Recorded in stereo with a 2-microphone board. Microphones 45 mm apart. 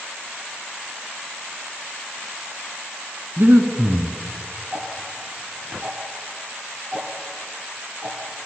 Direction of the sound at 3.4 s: 55° right (ahead or behind).